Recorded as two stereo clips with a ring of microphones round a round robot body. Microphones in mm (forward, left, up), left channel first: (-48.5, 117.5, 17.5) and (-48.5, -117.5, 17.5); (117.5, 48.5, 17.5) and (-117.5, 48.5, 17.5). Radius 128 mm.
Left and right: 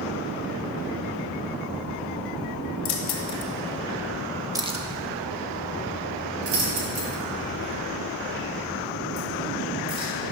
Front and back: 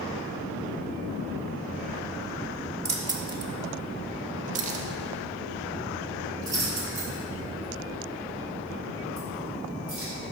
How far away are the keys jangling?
About 1.2 m.